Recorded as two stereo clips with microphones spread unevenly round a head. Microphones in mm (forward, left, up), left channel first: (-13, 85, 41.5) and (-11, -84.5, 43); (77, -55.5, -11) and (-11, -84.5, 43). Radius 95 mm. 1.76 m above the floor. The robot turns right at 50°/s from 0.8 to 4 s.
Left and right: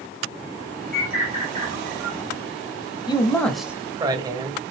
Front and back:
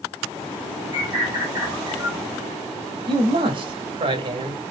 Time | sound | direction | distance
0.9 | a bird | straight behind | 1.4 m
3.1 | a man speaking | 155° left | 0.6 m